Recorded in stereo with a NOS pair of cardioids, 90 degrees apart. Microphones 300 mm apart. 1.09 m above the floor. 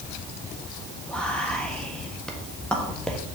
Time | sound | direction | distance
1.1 | whispering | 5° left | 1.3 m